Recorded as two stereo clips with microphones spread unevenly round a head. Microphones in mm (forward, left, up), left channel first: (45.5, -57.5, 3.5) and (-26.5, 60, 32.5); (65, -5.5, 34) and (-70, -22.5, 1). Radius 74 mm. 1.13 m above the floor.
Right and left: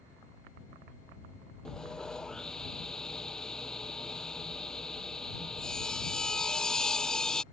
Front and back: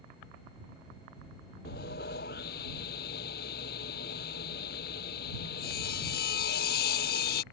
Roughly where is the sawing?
Ahead left.